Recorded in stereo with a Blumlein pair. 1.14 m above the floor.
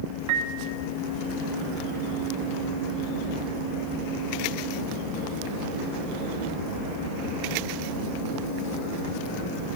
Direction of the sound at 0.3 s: 45° right.